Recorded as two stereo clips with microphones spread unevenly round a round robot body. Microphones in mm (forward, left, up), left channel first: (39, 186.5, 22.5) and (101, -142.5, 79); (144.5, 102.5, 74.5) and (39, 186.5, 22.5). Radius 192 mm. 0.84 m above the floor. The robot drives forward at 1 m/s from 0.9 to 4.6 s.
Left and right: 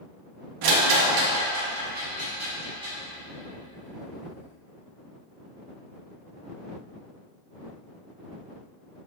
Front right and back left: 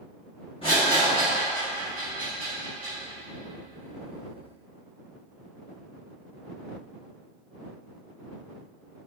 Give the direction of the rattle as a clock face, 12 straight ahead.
4 o'clock.